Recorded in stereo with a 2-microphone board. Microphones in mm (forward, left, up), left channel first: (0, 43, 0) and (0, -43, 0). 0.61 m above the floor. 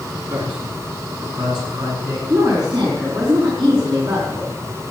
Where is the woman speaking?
75° right (ahead or behind), 5 m.